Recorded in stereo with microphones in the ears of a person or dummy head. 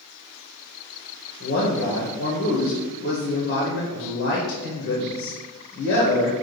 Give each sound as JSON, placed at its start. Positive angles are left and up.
{"t": 1.4, "sound": "a man speaking", "side_deg": 50, "distance_m": 0.8}